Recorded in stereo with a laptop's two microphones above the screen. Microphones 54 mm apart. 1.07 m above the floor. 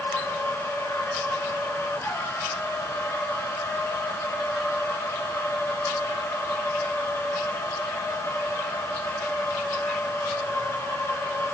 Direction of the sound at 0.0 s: 60° left (ahead or behind).